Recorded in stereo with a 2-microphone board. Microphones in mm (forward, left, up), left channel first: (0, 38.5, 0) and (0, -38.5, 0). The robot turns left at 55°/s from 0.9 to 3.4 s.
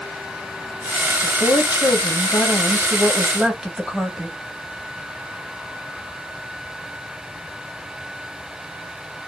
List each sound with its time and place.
1.2 s a woman speaking: 115° left, 1.2 m; by 4.4 s 5° right, 1.2 m